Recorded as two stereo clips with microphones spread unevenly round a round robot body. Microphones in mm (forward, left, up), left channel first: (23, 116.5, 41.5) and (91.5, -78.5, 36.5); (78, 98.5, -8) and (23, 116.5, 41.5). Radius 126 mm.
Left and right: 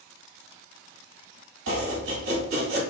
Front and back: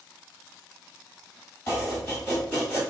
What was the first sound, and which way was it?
Chopping, 65° right.